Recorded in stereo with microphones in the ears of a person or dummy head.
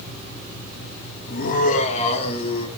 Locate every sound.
1.3 s laughter: 50° left (ahead or behind), 2 m; by 2.7 s 30° left (ahead or behind), 2.5 m